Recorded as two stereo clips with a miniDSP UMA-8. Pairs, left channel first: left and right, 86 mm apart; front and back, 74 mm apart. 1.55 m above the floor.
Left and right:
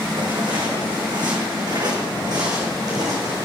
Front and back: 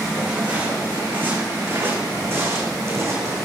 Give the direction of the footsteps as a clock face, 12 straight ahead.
4 o'clock.